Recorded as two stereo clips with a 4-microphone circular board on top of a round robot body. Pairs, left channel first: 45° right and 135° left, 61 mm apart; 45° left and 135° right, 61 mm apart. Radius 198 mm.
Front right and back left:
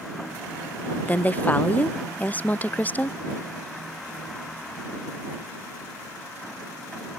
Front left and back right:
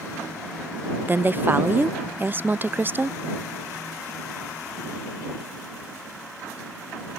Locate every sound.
1.1 s a woman speaking: 95° right